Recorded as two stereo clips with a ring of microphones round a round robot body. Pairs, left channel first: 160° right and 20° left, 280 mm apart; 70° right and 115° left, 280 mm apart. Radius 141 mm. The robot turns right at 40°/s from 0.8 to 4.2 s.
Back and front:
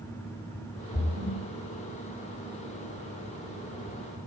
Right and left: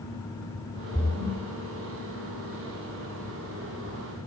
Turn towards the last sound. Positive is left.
turn(degrees=95)